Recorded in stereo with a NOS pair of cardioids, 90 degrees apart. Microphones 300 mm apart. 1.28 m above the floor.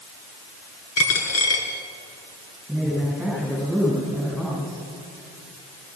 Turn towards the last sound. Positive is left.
turn(degrees=0)